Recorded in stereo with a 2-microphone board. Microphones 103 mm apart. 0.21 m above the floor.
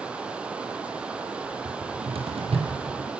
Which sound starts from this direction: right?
A cupboard door, at 1.6 s.